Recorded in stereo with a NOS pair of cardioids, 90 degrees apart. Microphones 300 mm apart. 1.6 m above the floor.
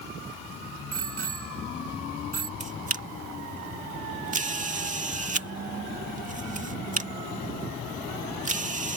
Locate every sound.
0.9 s a bicycle bell: 50° right
2.6 s a camera shutter: 25° right